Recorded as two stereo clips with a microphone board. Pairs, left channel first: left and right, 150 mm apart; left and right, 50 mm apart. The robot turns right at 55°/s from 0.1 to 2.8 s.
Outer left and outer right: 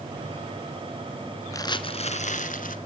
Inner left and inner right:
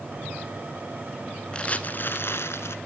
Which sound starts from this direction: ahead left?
Crumpling, at 1.5 s.